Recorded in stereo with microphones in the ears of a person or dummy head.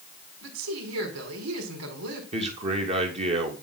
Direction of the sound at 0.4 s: 90° right.